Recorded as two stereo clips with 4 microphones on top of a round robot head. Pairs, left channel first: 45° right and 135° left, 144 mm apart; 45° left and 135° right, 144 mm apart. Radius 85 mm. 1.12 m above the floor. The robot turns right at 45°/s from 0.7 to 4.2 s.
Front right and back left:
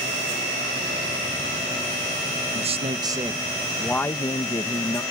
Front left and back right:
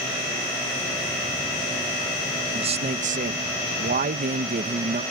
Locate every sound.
2.5 s a man speaking: 175° left; by 5.0 s 110° right